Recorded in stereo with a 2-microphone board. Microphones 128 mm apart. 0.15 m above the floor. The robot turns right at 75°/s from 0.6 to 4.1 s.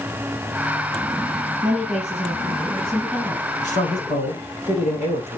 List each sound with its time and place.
1.6 s a woman speaking: 100° right, 4 m; by 3.5 s 35° left, 4 m
3.6 s a man speaking: 80° left, 6 m; by 5.4 s 115° left, 6 m